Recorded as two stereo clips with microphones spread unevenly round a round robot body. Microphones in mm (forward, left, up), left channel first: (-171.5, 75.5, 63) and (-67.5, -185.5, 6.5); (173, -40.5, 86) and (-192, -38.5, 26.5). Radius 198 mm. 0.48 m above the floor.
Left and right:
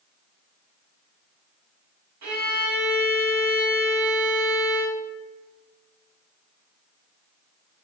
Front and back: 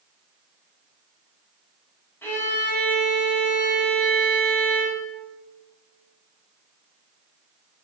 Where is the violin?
85° right, 2.5 m.